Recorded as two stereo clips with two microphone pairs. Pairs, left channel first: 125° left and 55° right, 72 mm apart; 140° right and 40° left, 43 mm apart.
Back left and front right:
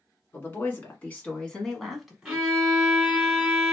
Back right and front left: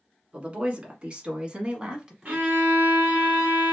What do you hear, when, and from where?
0.3 s a woman speaking: 85° left, 1.5 m; by 2.4 s straight ahead, 1.1 m
2.2 s a violin: 25° left, 1.7 m